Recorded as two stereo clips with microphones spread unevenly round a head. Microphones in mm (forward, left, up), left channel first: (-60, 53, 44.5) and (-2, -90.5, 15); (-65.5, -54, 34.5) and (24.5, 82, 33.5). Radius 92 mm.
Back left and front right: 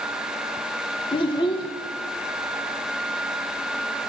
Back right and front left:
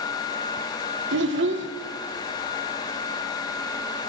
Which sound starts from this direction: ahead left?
A child speaking, at 1.1 s.